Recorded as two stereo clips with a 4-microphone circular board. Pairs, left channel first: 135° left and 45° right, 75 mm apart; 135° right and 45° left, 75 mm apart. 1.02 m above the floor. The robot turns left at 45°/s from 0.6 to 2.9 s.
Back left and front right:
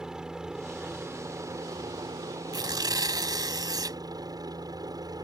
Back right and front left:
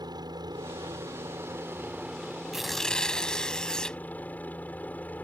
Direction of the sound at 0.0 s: 35° left.